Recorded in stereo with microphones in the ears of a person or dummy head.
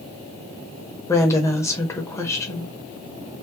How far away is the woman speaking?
About 0.8 m.